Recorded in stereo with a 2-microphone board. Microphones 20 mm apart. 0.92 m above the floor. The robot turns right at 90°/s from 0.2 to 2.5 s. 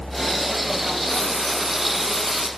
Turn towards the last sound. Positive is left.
turn(degrees=-75)